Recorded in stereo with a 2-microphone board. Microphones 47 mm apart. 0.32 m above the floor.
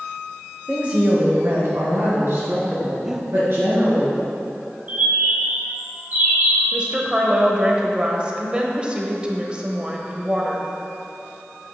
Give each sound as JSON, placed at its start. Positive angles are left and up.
{"t": 0.7, "sound": "a woman speaking", "side_deg": -20, "distance_m": 0.9}
{"t": 3.0, "sound": "breathing", "side_deg": -15, "distance_m": 0.5}
{"t": 4.9, "sound": "a bird", "side_deg": -35, "distance_m": 1.6}
{"t": 6.7, "sound": "a woman speaking", "side_deg": -25, "distance_m": 1.0}